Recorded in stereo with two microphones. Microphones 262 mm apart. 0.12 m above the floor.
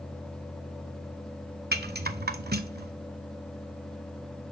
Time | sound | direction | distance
1.7 | a rattle | 40° right (ahead or behind) | 0.5 m